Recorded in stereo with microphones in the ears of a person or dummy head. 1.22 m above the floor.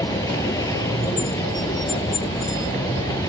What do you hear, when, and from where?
0.0 s a vehicle: 20° left (ahead or behind)